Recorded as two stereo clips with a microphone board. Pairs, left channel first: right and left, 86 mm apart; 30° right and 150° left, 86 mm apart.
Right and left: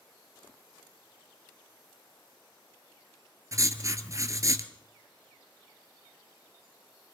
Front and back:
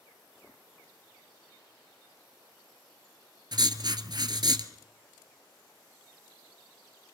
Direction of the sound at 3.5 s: 135° left.